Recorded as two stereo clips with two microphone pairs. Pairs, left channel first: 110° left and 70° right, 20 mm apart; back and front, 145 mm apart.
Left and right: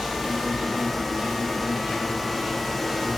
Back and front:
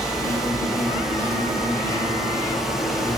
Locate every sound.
0.0 s an insect: 105° right, 3.5 m